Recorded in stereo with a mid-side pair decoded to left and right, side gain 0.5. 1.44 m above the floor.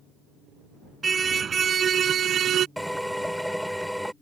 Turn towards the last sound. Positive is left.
turn(degrees=0)